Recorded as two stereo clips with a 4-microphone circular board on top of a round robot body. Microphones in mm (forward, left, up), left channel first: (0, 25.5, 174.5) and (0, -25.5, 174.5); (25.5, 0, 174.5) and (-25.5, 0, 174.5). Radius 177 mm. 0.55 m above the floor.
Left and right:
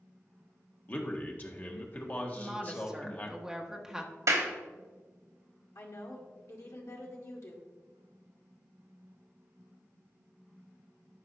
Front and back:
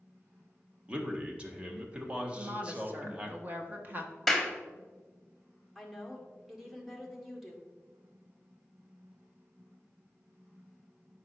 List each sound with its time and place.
0.9 s a man speaking: 125° left, 1.6 m
2.4 s a woman speaking: 165° right, 1.4 m
4.3 s a clap: 90° right, 1.5 m
5.8 s a woman speaking: 95° left, 1.9 m